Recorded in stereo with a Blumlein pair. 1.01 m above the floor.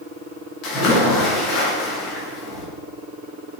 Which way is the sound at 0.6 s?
40° left.